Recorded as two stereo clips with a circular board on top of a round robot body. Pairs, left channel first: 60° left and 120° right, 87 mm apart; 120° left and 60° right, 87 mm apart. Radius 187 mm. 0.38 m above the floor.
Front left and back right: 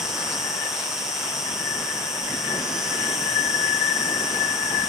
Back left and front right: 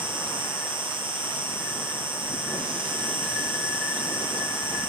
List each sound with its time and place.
0.0 s an insect: 35° right, 1.3 m